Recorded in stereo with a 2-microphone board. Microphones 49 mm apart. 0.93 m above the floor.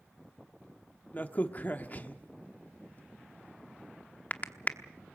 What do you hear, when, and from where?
1.1 s a crack: 35° left (ahead or behind), 1.0 m